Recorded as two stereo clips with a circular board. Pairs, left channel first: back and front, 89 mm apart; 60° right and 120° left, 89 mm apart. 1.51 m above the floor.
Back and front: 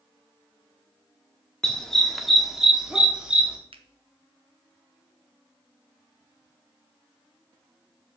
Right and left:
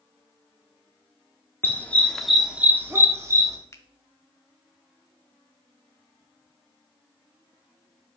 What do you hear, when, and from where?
1.6 s a dog barking: 105° right, 1.2 m; by 3.6 s 75° left, 1.7 m
3.7 s a finger snap: straight ahead, 0.8 m